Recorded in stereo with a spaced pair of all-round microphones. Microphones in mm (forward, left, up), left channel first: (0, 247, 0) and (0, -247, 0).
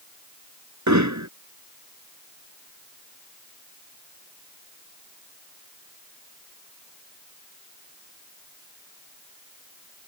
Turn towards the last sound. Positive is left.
turn(degrees=-35)  # may be behind; listen again after turning